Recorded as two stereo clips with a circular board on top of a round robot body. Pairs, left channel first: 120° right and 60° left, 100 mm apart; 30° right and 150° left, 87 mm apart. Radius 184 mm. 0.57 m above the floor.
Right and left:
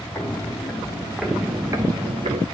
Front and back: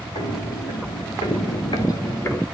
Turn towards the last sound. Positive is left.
turn(degrees=40)